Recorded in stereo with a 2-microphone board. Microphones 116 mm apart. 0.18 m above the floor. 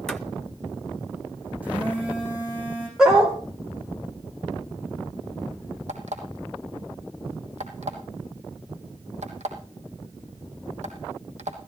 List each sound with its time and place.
0.1 s footsteps: 5° left (ahead or behind), 0.7 m
1.6 s a phone buzzing: 10° right (ahead or behind), 8 m
3.0 s a dog barking: 5° right (ahead or behind), 2.5 m
5.9 s an alarm clock: 80° right, 3 m